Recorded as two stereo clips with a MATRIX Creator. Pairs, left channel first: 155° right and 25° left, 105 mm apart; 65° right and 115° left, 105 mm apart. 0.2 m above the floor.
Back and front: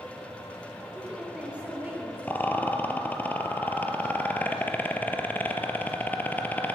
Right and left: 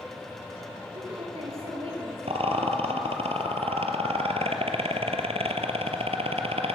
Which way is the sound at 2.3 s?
130° left.